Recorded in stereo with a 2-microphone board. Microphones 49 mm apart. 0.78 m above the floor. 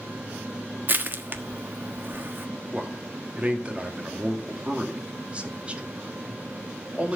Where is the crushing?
45° right (ahead or behind), 1.2 m.